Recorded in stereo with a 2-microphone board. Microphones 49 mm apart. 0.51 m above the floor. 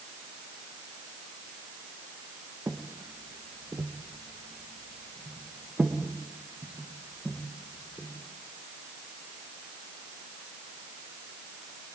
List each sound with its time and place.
2.7 s footsteps: 55° right (ahead or behind), 2 m; by 8.1 s 15° right (ahead or behind), 5 m